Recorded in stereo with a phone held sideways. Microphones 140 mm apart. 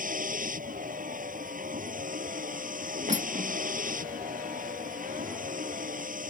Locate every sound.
0.0 s a vehicle: 80° right
3.1 s cutlery clinking: 55° right (ahead or behind)